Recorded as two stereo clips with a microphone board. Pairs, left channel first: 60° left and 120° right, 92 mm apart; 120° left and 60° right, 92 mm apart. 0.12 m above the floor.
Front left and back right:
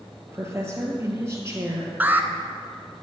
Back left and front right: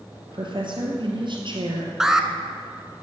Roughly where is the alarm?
Behind right.